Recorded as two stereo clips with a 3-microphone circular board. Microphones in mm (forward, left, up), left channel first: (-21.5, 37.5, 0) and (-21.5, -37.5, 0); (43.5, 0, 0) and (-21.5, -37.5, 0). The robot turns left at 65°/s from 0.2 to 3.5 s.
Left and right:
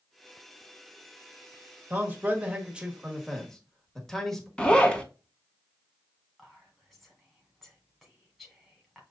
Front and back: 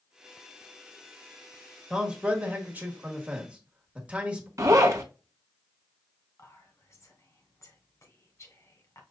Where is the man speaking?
85° right, 1.2 m; by 4.5 s 170° left, 1.2 m.